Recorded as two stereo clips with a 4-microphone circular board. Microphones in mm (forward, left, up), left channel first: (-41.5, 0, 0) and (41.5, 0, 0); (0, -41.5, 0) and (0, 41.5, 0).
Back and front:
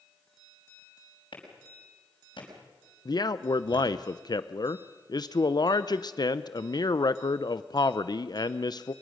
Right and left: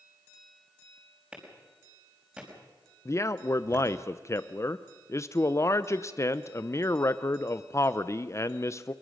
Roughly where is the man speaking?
Behind right.